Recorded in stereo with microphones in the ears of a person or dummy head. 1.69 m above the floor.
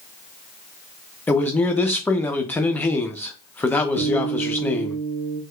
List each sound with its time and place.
1.3 s a man speaking: 20° left (ahead or behind), 0.6 m
4.0 s a guitar: 50° right (ahead or behind), 0.7 m